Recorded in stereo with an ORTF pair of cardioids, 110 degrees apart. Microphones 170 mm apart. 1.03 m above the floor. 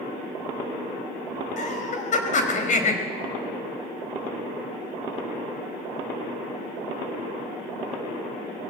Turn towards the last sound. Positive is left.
turn(degrees=50)